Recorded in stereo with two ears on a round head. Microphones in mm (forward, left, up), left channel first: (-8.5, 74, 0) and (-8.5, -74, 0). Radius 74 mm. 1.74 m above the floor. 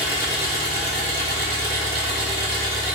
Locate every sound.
0.0 s an engine running: 35° right (ahead or behind), 1.3 m